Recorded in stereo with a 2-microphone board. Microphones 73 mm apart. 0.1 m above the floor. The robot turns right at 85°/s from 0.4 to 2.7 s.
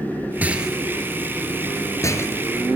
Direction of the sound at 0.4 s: 20° right (ahead or behind).